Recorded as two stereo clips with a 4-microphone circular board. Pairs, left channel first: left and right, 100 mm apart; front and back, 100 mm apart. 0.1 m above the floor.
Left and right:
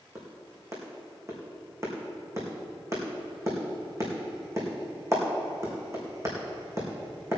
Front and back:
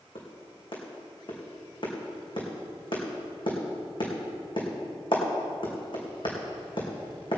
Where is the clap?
30° right, 4.5 m.